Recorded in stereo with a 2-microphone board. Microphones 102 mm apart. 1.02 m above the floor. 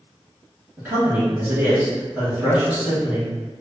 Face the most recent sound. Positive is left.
turn(degrees=-20)  # may be behind; listen again after turning